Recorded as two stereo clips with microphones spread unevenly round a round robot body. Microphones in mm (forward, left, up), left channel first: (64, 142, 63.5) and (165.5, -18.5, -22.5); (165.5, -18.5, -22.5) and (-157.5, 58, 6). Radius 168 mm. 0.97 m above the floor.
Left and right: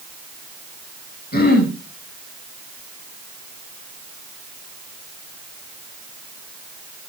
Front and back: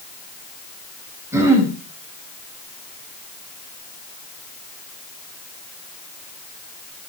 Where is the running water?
I don't hear running water.